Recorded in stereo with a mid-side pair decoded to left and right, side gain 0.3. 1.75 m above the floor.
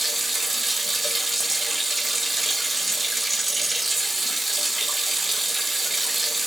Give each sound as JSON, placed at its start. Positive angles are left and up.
{"t": 0.0, "sound": "running water", "azimuth_deg": -30, "distance_m": 1.2}